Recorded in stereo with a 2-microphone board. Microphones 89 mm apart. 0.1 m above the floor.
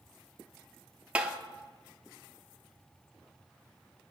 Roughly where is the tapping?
Centre.